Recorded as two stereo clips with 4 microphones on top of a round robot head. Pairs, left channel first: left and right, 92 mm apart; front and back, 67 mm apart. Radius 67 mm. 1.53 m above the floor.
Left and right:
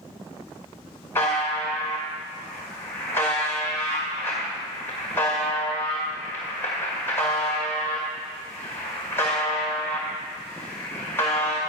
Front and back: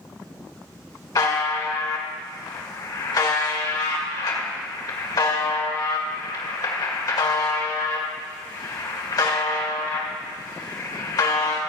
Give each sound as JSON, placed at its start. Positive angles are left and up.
{"t": 1.1, "sound": "a buzzer", "azimuth_deg": 20, "distance_m": 2.0}